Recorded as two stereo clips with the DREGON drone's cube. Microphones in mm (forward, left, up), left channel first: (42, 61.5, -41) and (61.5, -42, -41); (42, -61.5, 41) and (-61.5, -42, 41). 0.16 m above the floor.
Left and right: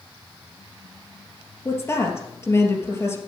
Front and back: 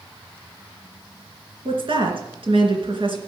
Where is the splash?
No splash in this recording.